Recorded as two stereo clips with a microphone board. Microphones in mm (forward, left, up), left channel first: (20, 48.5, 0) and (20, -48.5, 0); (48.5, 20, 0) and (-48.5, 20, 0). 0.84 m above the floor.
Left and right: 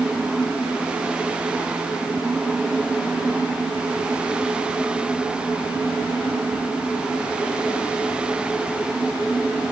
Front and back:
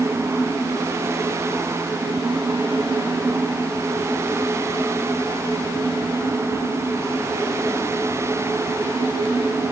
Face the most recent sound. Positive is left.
No sound to turn to.